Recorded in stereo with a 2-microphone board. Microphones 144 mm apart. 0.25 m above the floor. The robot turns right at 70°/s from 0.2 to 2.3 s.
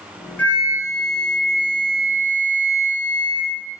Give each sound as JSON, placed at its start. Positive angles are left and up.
{"t": 0.4, "sound": "a flute", "azimuth_deg": 20, "distance_m": 1.1}